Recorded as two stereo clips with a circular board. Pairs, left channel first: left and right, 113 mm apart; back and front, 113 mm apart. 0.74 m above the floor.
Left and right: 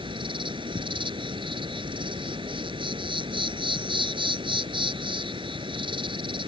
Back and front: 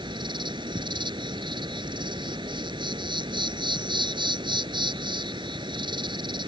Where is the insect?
45° right.